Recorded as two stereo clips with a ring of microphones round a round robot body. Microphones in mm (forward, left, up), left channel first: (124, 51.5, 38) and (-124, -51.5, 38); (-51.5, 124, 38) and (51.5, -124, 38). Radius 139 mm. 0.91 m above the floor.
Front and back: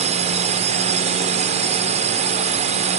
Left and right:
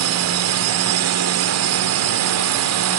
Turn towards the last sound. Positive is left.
turn(degrees=-90)